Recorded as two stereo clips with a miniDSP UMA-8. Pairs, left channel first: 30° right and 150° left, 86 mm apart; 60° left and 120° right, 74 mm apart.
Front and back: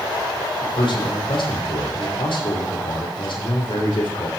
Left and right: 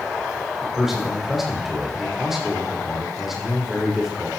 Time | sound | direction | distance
0.6 | a man speaking | 35° right | 6 m